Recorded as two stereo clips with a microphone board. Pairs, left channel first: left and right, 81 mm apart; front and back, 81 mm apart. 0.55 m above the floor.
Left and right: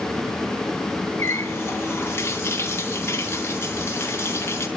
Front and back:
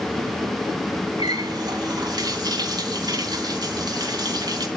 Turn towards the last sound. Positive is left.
turn(degrees=150)